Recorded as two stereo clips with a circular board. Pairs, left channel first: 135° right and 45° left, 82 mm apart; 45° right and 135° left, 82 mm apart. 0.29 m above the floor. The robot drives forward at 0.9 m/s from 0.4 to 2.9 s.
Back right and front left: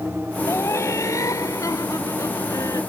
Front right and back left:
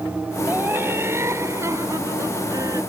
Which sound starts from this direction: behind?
Laughter, at 0.5 s.